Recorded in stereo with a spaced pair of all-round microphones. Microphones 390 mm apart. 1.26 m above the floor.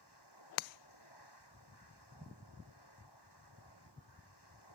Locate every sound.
0.0 s a machine running: 85° left